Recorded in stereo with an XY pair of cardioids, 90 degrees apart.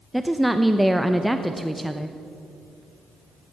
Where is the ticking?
I don't hear ticking.